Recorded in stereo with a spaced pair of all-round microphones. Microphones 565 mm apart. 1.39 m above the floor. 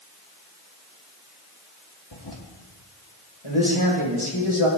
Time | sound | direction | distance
2.1 | a toilet flushing | 45° left (ahead or behind) | 2 m
3.4 | a man speaking | 60° left (ahead or behind) | 6.5 m